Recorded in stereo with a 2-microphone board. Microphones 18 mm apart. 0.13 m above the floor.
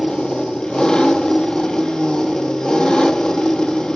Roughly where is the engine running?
Left.